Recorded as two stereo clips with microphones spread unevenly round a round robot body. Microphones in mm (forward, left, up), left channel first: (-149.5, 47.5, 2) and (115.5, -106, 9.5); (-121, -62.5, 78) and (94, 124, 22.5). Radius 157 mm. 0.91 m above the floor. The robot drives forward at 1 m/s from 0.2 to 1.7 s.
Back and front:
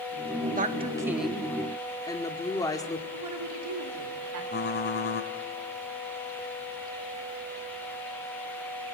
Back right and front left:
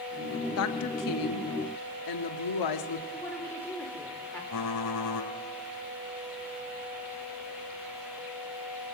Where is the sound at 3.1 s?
55° right, 3.5 m.